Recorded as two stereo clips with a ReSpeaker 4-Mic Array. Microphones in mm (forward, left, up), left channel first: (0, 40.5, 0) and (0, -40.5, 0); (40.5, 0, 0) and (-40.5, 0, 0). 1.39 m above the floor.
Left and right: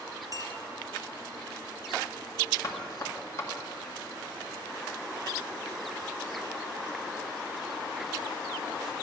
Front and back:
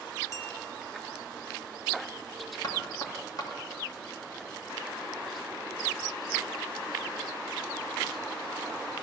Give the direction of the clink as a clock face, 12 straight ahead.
2 o'clock.